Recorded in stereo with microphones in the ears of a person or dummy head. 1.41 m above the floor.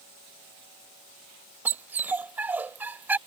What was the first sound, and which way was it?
A dog barking, 10° right (ahead or behind).